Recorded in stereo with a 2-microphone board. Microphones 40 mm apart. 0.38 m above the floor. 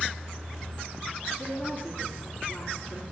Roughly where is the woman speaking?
Left.